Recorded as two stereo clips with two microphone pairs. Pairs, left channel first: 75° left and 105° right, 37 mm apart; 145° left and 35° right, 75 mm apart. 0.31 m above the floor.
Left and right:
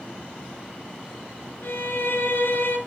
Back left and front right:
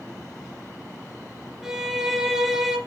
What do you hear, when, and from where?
1.6 s a violin: 50° left, 2.5 m